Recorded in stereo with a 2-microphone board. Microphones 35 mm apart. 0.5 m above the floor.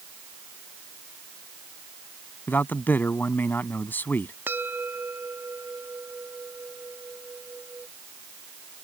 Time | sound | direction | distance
2.5 | a man speaking | 70° left (ahead or behind) | ?
4.5 | a bell | 80° right | ?